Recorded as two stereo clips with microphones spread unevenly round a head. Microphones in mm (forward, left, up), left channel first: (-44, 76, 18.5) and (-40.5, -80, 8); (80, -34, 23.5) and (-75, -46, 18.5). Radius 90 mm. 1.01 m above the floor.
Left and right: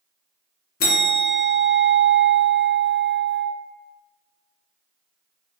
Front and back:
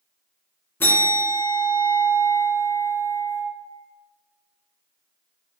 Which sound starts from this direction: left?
A bell, at 0.8 s.